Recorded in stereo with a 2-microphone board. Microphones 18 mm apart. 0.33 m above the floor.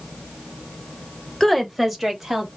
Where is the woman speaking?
20° left (ahead or behind), 1.0 m; by 2.5 s 15° right (ahead or behind), 1.9 m.